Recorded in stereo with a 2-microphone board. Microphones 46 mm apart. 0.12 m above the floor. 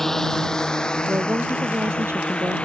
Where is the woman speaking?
60° right (ahead or behind).